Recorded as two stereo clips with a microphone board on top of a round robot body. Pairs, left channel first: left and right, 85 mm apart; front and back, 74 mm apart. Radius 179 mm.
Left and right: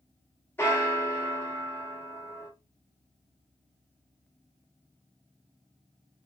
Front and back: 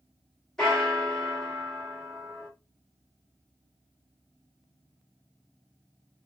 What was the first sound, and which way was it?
A bell, 75° left.